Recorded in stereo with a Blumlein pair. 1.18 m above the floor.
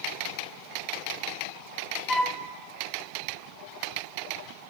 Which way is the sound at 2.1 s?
5° left.